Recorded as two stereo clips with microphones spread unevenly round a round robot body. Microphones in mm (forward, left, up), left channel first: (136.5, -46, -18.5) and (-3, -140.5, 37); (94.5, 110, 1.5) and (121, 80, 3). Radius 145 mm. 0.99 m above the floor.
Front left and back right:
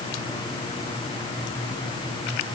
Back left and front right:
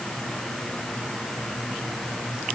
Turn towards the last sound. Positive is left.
No sound to turn to.